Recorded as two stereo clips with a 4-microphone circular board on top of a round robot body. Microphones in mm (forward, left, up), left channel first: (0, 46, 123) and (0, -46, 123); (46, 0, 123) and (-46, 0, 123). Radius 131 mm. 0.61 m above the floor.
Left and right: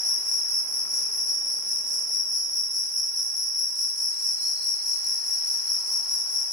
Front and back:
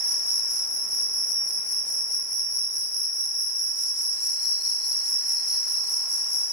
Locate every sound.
0.0 s an insect: 55° right, 1.2 m